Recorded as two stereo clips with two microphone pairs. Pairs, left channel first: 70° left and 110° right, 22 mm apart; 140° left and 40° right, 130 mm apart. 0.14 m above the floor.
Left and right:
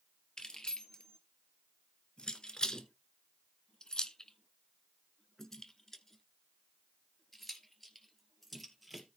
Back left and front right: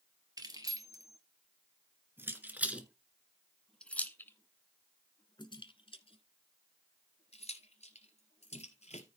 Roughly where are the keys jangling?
Ahead.